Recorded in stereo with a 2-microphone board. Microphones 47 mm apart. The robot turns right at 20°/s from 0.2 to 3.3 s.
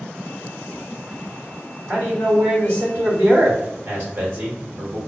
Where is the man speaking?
45° right (ahead or behind), 1.0 m.